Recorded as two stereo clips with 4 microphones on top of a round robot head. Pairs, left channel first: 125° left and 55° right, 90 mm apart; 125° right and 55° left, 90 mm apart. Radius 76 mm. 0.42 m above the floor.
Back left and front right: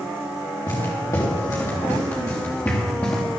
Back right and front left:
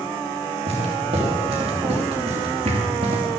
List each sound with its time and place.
0.7 s footsteps: 75° left, 5.5 m; by 3.2 s 50° left, 3.5 m